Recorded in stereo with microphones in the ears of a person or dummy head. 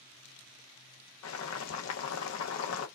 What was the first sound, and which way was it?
Boiling, 80° left.